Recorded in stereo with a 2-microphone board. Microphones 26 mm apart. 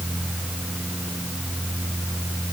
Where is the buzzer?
No buzzer in this recording.